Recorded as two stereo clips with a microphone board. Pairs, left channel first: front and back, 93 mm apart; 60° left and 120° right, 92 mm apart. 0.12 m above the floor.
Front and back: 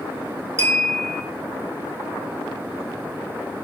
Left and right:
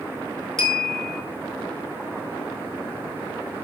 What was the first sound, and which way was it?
A clink, 145° left.